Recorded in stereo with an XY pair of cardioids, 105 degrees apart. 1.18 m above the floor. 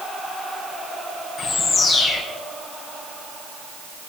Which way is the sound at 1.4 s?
40° left.